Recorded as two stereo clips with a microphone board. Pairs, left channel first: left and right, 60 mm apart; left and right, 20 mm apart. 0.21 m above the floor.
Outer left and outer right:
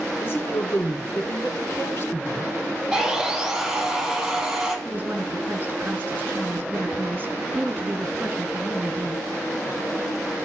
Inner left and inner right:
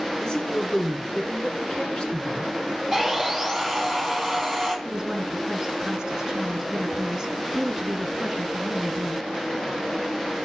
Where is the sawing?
5° right (ahead or behind), 5.5 m.